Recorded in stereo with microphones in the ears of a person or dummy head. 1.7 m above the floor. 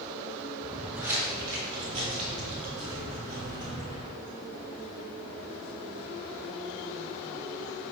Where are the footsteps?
Centre (ahead or behind), 1.9 m; by 4.1 s 55° right (ahead or behind), 3 m.